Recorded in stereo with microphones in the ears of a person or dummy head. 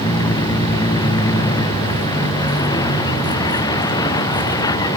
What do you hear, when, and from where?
0.0 s a vehicle: 20° left (ahead or behind)